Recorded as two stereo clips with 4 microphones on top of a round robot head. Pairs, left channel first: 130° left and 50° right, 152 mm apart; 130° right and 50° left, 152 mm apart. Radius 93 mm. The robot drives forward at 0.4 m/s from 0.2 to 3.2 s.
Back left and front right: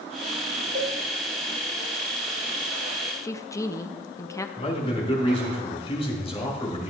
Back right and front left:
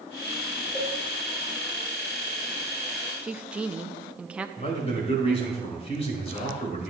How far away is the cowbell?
About 4.5 m.